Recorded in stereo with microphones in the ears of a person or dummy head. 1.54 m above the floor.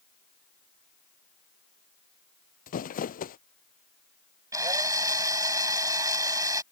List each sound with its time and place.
2.7 s crumpling: 45° left (ahead or behind)
4.5 s a drill: 15° right (ahead or behind)